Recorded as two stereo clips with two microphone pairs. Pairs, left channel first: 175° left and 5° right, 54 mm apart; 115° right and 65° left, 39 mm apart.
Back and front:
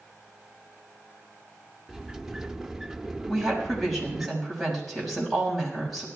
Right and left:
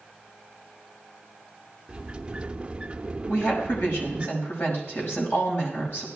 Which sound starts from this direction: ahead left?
A sliding door, at 1.9 s.